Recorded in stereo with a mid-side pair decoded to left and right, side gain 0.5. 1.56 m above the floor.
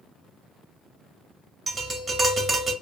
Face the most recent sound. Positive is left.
turn(degrees=-35)